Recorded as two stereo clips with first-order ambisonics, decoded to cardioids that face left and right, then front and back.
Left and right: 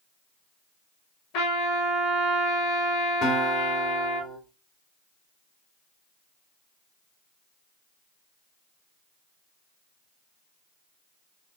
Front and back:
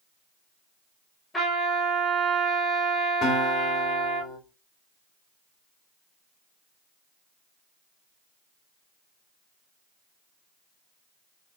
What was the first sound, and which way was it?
A trumpet, 80° left.